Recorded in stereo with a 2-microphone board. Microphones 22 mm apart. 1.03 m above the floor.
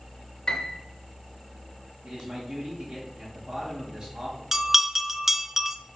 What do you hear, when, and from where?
0.5 s a piano: 40° left (ahead or behind), 1.1 m
2.0 s a man speaking: 55° right (ahead or behind), 2 m
4.5 s a bell: 15° right (ahead or behind), 0.5 m